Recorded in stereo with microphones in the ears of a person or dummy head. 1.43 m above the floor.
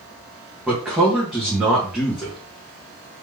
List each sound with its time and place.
0.7 s a man speaking: 5° right (ahead or behind), 1.1 m